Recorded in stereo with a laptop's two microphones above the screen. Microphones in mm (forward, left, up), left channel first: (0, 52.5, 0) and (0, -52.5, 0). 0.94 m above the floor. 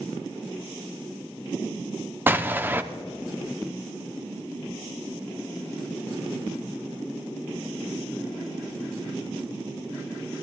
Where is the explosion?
20° right (ahead or behind), 0.7 m.